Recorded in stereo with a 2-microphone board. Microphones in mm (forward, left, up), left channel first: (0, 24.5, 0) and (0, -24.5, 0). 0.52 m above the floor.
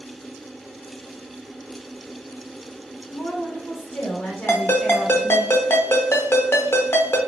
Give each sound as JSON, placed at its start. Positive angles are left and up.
{"t": 3.1, "sound": "a woman speaking", "side_deg": 50, "distance_m": 1.9}
{"t": 4.5, "sound": "a ringtone", "side_deg": 60, "distance_m": 0.8}